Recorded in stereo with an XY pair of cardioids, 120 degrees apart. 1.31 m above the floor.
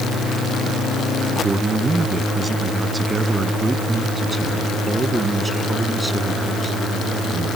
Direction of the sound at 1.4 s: 25° right.